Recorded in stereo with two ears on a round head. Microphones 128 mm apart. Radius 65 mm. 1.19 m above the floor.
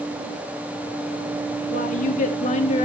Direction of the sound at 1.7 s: 60° left (ahead or behind).